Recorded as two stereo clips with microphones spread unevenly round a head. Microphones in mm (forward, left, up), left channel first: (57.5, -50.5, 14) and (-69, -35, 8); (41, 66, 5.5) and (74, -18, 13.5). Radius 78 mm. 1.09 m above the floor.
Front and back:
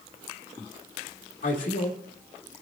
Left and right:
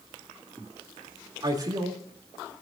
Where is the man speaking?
25° right, 2.5 m.